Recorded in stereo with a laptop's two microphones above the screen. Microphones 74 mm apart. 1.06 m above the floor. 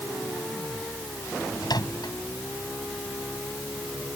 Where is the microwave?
75° left (ahead or behind).